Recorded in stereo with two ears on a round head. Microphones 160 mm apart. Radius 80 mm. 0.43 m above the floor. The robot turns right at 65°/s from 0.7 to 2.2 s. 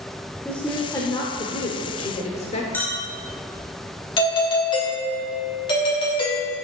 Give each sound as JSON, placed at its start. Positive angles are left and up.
{"t": 0.5, "sound": "a woman speaking", "azimuth_deg": 15, "distance_m": 0.9}
{"t": 2.7, "sound": "a clink", "side_deg": 10, "distance_m": 1.7}
{"t": 4.2, "sound": "a doorbell", "side_deg": 25, "distance_m": 1.8}